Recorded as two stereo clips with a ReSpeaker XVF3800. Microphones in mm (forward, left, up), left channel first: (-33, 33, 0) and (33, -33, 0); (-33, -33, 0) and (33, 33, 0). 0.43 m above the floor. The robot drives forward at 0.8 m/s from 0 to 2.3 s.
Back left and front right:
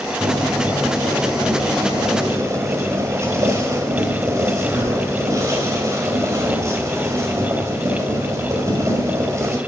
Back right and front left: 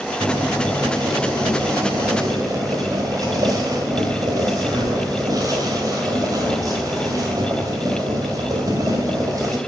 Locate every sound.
0.2 s boiling: 5° left, 3.5 m